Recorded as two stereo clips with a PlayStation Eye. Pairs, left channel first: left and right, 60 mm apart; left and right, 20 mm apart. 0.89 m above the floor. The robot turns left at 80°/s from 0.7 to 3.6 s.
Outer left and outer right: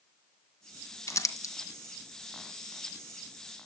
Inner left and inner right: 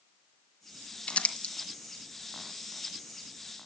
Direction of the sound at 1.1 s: 55° left (ahead or behind).